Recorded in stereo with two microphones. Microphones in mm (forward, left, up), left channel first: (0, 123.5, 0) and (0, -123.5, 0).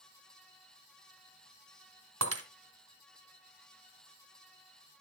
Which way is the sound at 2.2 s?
80° right.